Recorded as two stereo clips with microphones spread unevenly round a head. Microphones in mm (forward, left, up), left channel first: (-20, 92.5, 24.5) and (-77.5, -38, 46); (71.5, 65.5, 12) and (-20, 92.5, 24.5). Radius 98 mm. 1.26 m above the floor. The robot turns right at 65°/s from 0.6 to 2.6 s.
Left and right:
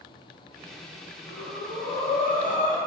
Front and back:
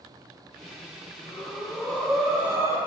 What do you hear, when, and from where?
1.3 s breathing: 15° left, 1.8 m; by 2.8 s 105° left, 1.8 m